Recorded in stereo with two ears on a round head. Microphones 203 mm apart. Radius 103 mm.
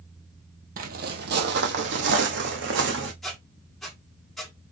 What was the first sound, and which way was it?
Footsteps, 40° right (ahead or behind).